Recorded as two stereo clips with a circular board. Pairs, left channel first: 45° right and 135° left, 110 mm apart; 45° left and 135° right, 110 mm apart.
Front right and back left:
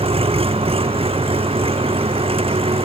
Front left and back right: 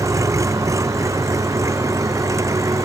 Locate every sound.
0.0 s an engine running: 165° left